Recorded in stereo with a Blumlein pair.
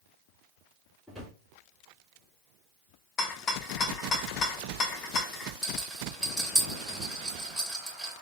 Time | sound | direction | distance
1.1 | a drawer | 10° left | 2.5 m
3.2 | a rattle | 25° left | 0.6 m
5.6 | a rattle | straight ahead | 2.5 m